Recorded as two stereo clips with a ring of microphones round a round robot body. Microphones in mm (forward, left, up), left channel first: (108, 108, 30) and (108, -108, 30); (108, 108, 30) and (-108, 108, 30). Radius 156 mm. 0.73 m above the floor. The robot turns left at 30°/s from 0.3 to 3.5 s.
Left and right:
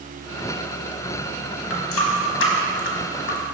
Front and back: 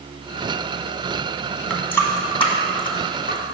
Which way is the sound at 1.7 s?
90° left.